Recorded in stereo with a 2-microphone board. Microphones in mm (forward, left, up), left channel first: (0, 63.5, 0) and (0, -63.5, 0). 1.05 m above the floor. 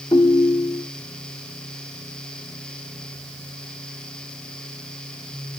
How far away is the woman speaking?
I don't hear a woman speaking.